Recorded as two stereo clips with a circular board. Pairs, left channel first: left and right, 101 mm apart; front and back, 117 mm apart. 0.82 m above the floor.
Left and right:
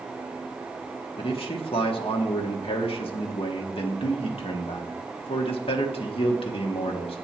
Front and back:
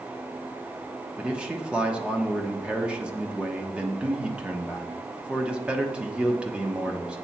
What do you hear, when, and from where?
1.2 s a man speaking: 100° left, 1.3 m